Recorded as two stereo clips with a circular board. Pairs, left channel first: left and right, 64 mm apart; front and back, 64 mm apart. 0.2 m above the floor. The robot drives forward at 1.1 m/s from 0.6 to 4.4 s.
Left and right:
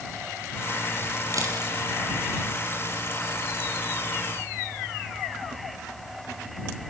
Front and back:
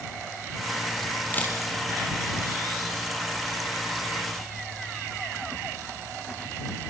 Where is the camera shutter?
60° right, 4.5 m; by 1.6 s 65° right, 4.5 m.